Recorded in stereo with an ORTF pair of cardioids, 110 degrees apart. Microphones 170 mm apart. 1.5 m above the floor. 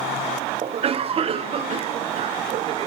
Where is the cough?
35° right, 0.7 m.